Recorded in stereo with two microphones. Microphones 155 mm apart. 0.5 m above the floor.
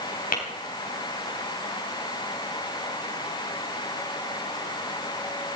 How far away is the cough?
I don't hear a cough.